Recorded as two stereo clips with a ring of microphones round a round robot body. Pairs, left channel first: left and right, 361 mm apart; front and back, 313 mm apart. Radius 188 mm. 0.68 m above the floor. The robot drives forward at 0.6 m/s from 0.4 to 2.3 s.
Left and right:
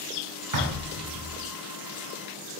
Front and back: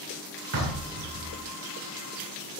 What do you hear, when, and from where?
0.5 s knocking: 130° right, 2 m; by 1.4 s 135° right, 2.5 m